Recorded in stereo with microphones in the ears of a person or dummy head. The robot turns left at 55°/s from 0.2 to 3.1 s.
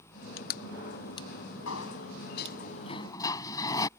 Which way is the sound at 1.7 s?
95° left.